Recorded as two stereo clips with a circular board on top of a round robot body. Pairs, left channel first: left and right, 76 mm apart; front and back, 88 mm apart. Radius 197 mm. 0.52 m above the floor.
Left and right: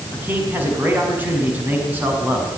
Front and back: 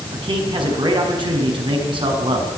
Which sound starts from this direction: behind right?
A man speaking, at 0.1 s.